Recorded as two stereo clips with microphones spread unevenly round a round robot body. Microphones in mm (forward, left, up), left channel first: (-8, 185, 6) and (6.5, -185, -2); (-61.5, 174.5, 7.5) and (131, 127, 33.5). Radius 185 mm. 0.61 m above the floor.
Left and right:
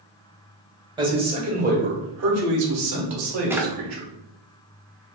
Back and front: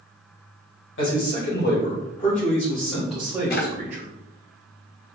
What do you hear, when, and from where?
1.0 s a man speaking: 165° right, 2.5 m; by 4.1 s 75° right, 1.7 m
3.5 s a drawer: 170° right, 0.6 m